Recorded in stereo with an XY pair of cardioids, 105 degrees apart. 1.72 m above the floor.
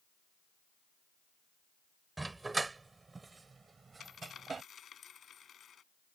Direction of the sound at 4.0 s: 50° left.